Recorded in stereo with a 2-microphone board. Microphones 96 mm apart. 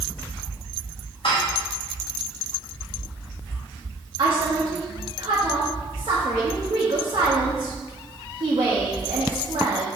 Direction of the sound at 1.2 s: 60° left (ahead or behind).